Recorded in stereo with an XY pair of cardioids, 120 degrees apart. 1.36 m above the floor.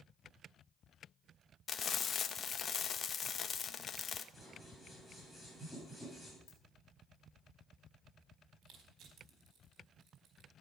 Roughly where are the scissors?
Ahead.